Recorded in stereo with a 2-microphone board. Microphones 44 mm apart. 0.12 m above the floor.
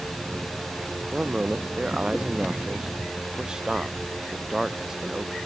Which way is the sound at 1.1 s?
25° right (ahead or behind).